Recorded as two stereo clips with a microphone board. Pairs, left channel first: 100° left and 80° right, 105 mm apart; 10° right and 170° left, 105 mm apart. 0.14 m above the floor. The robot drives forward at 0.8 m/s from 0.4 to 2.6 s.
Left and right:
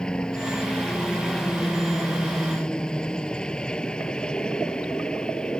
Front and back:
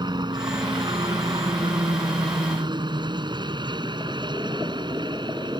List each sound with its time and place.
0.0 s a helicopter: straight behind